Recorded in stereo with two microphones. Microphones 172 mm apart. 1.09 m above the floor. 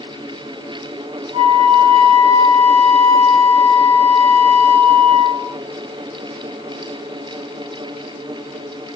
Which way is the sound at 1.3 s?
35° right (ahead or behind).